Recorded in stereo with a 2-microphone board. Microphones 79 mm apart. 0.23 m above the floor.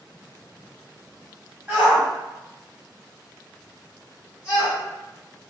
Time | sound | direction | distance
1.7 | a shout | 20° right (ahead or behind) | 1.3 m